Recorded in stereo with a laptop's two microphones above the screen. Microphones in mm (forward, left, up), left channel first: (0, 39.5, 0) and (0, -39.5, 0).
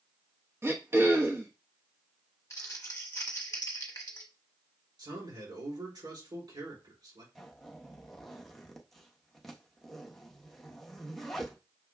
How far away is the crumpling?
About 0.9 m.